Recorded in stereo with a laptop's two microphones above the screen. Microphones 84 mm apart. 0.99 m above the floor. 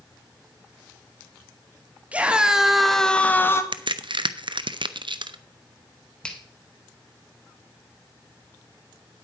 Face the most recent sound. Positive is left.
turn(degrees=10)  # may be behind; listen again after turning